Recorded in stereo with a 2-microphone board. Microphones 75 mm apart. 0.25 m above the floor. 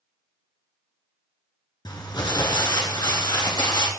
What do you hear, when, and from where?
1.9 s crumpling: 70° left (ahead or behind), 1.6 m